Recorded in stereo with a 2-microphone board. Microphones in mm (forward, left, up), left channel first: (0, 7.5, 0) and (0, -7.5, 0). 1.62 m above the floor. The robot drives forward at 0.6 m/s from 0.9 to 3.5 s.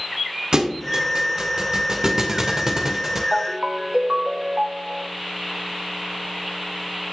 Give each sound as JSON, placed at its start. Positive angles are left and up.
{"t": 0.5, "sound": "a thud", "side_deg": -55, "distance_m": 2.0}
{"t": 3.3, "sound": "a ringtone", "side_deg": -45, "distance_m": 1.8}